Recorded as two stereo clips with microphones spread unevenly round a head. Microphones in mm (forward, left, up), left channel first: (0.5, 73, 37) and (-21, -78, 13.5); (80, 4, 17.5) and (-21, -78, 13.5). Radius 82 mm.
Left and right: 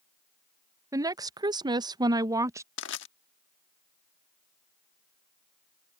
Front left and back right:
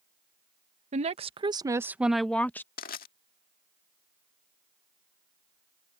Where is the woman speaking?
155° right; by 2.7 s 35° right.